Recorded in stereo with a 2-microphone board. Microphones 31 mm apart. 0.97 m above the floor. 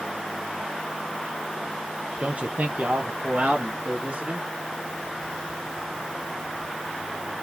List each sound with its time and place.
2.2 s a man speaking: 40° right (ahead or behind), 0.8 m; by 4.4 s 35° right (ahead or behind), 1.7 m